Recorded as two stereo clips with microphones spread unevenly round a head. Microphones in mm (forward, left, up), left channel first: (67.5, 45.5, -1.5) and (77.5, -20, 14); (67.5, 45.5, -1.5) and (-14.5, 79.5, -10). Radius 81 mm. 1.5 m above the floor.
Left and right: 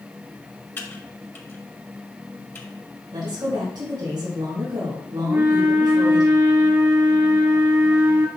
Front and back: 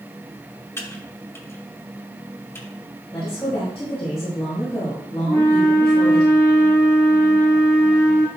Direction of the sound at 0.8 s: 40° left.